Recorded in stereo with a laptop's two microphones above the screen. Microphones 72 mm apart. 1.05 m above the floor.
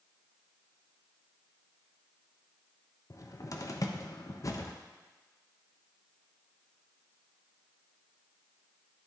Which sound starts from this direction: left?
A cupboard door, at 3.1 s.